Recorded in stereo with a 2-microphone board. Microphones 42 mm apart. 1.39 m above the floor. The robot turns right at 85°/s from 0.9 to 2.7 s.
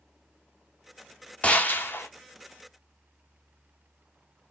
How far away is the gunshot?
About 0.6 m.